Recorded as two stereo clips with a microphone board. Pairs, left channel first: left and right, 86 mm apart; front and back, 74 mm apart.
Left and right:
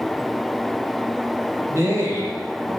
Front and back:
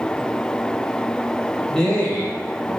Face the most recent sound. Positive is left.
turn(degrees=-25)